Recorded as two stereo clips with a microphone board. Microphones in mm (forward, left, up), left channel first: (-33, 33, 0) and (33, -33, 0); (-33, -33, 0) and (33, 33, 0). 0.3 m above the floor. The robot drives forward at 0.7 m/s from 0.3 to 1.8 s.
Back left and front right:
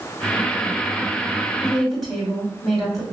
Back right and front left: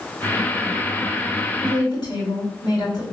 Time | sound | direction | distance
1.6 | a woman speaking | 130° right | 1.9 m